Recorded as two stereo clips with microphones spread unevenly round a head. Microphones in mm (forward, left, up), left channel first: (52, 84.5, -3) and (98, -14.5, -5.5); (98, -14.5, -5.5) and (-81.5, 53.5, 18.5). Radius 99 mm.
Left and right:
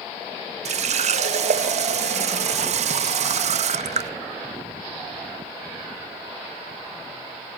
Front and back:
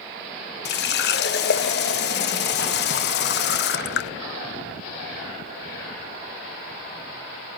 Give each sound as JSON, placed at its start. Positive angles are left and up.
{"t": 0.7, "sound": "a running tap", "azimuth_deg": -60, "distance_m": 0.6}